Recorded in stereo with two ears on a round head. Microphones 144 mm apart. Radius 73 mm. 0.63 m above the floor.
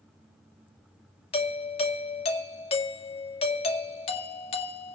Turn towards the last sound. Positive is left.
turn(degrees=35)  # may be behind; listen again after turning